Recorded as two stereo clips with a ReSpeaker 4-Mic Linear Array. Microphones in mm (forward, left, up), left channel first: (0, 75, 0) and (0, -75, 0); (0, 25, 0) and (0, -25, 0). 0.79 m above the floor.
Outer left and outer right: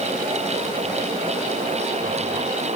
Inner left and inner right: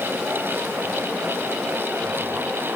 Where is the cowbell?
I don't hear a cowbell.